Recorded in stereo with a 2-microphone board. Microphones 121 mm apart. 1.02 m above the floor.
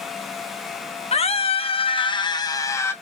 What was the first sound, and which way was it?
A scream, 55° left (ahead or behind).